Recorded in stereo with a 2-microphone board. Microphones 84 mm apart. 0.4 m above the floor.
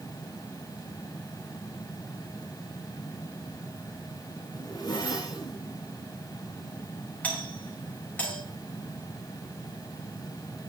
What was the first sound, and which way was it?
A zipper, 45° left (ahead or behind).